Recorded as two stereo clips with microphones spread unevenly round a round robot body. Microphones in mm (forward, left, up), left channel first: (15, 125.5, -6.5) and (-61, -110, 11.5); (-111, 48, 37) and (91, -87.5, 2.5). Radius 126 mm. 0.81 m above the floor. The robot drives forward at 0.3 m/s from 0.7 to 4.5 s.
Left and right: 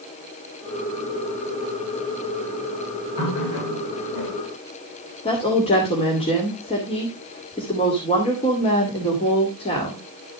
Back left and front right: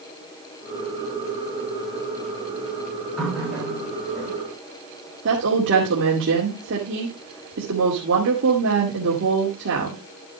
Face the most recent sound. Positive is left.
turn(degrees=5)